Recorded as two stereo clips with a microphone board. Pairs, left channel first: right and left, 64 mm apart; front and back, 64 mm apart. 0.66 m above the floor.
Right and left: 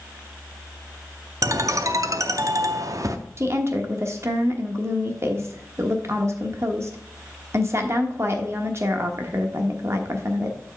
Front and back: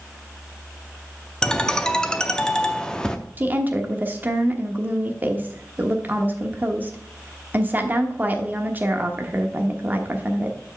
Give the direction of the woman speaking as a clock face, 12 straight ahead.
8 o'clock.